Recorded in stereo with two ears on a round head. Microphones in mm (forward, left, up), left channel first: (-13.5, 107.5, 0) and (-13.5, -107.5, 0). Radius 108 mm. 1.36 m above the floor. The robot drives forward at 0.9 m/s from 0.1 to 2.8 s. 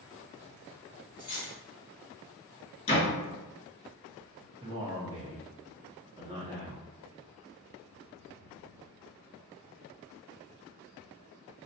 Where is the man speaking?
20° right (ahead or behind), 0.7 m.